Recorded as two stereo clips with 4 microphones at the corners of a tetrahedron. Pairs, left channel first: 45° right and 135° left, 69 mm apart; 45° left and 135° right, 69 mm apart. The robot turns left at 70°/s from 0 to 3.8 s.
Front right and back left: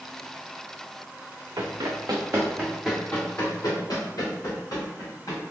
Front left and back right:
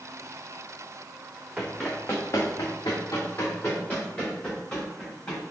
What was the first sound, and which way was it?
Running footsteps, 145° left.